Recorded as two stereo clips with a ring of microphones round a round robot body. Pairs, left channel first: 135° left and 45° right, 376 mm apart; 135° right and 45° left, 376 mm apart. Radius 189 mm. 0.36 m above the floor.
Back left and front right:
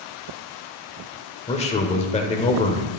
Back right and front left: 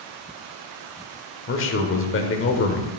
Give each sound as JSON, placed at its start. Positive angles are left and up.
{"t": 1.5, "sound": "a man speaking", "azimuth_deg": -165, "distance_m": 1.0}